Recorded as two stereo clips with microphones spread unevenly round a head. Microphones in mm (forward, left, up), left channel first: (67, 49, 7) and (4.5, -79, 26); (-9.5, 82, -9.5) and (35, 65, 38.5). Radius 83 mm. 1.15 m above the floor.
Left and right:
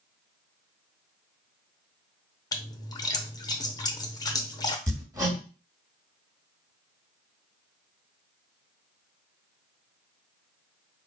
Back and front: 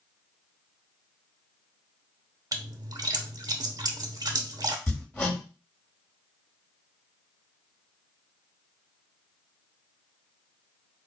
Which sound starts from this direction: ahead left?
A splash, at 2.5 s.